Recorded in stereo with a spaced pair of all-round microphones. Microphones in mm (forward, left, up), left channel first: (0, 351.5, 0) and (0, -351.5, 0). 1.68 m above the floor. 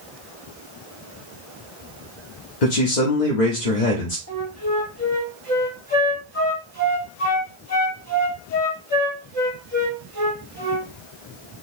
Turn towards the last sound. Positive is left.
turn(degrees=20)  # may be behind; listen again after turning